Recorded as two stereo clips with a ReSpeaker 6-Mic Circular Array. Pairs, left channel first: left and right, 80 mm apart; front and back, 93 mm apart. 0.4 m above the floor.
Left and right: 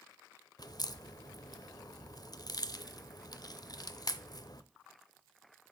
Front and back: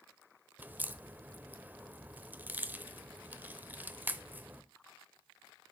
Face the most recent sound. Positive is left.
turn(degrees=110)